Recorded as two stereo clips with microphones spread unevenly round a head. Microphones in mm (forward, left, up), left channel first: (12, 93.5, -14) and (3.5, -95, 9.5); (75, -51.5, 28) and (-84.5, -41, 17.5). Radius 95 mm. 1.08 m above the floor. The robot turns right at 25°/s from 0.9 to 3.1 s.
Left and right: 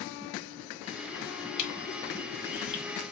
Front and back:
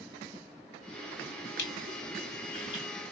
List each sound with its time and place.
1.6 s crushing: 35° left, 2.5 m; by 2.8 s 65° left, 2.5 m